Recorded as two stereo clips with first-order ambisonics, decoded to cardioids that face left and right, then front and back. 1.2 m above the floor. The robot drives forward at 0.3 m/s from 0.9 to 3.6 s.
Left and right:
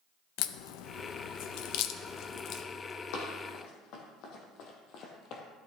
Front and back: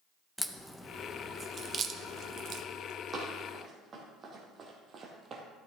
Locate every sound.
0.4 s a crack: 85° left, 0.5 m; by 2.6 s 135° left, 0.7 m
3.1 s running footsteps: 115° left, 3 m; by 5.4 s 125° left, 1.8 m